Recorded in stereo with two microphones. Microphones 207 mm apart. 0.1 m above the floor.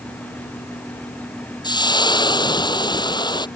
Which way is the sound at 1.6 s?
20° left (ahead or behind).